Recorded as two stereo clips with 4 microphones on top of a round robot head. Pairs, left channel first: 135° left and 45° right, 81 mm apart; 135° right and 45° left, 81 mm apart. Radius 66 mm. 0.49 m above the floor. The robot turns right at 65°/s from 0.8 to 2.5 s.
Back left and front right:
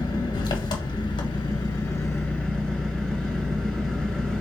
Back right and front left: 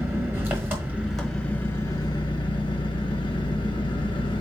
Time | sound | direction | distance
0.0 | an engine running | 110° left | 1.3 m